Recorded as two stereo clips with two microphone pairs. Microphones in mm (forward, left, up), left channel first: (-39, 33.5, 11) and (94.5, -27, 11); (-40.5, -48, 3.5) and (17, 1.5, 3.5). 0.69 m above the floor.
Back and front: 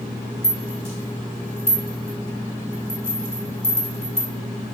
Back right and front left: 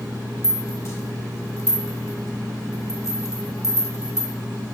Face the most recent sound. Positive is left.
turn(degrees=-95)